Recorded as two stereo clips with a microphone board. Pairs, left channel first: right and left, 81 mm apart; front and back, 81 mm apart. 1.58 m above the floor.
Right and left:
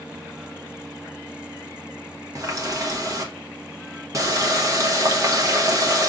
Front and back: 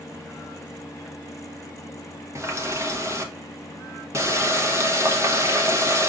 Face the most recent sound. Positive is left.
turn(degrees=130)